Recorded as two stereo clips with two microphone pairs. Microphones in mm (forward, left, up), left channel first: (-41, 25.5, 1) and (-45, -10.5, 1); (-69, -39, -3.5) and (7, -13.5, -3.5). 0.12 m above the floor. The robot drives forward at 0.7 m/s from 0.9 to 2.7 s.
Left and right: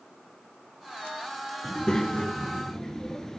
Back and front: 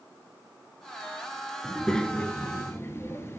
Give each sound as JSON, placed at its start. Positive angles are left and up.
{"t": 1.6, "sound": "a child speaking", "azimuth_deg": 105, "distance_m": 0.9}